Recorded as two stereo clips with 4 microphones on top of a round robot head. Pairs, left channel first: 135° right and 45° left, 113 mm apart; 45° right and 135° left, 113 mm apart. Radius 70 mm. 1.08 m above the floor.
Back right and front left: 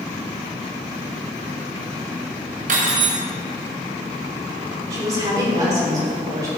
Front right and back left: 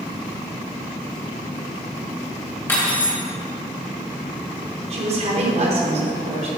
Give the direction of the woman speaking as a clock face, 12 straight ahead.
8 o'clock.